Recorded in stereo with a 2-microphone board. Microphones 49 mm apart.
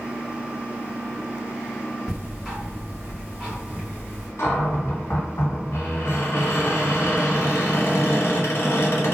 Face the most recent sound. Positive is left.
turn(degrees=60)  # may be behind; listen again after turning